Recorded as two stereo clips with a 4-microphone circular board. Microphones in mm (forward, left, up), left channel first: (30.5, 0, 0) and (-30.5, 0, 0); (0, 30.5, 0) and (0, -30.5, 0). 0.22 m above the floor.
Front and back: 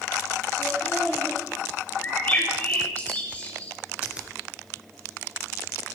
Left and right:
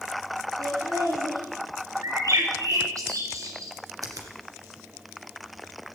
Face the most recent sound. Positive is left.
turn(degrees=-105)